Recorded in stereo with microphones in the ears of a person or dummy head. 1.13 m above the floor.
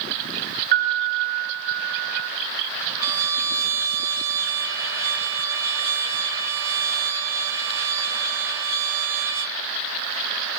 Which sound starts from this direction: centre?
A trumpet, at 3.0 s.